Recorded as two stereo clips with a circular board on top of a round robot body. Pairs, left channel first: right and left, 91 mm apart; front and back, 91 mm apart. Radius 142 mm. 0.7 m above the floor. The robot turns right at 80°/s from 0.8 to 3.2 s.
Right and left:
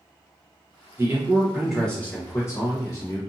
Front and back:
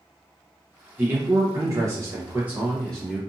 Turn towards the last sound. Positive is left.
turn(degrees=-60)